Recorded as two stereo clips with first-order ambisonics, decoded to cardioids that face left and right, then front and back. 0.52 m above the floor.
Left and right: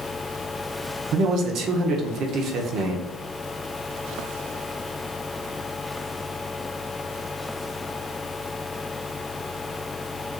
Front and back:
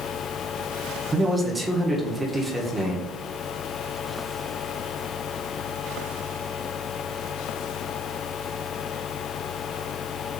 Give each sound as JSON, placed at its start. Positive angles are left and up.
{"t": 1.1, "sound": "a man speaking", "azimuth_deg": -105, "distance_m": 0.8}